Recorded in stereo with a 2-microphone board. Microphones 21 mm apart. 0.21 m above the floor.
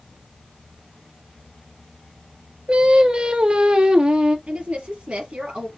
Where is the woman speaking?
70° right (ahead or behind), 4.5 m.